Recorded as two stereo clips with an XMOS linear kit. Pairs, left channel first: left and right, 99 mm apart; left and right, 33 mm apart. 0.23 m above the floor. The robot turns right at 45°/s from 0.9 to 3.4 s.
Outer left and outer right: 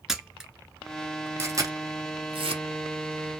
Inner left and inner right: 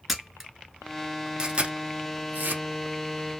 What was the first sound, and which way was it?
A camera shutter, 5° right (ahead or behind).